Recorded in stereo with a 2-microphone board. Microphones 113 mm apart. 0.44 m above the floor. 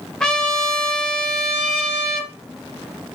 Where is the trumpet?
5° left (ahead or behind), 0.7 m.